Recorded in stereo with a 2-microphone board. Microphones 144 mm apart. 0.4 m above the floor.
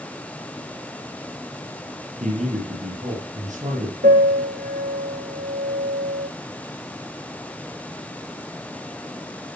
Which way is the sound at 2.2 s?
55° right (ahead or behind).